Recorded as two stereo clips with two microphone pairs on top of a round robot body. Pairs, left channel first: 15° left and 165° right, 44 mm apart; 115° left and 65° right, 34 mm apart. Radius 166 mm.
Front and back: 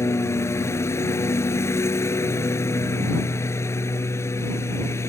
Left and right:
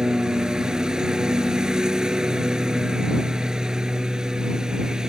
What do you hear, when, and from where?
0.0 s a lawn mower: 10° left